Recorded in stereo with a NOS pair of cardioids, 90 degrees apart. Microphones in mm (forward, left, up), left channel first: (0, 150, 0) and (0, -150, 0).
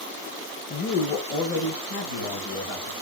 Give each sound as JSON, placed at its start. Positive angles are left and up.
{"t": 0.7, "sound": "a woman speaking", "azimuth_deg": 35, "distance_m": 0.6}